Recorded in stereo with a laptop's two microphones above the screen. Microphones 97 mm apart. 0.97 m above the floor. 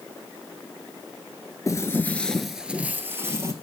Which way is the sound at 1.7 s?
30° left (ahead or behind).